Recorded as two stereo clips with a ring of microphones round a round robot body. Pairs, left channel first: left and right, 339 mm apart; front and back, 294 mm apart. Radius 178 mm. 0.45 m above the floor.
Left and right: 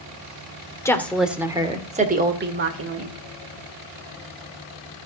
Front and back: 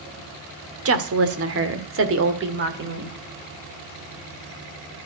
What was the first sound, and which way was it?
A woman speaking, 170° left.